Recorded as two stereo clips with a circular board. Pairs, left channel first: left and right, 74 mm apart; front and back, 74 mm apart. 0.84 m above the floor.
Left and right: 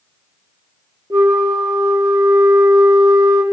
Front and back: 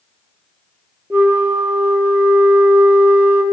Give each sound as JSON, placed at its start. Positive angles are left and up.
{"t": 1.1, "sound": "a flute", "azimuth_deg": -120, "distance_m": 1.3}